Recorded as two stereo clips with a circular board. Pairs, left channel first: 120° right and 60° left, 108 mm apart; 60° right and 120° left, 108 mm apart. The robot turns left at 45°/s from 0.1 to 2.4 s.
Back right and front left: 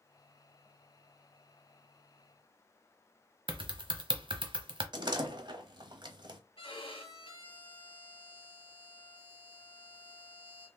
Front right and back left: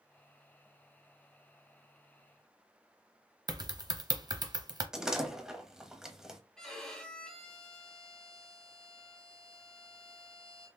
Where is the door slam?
40° left, 0.8 m.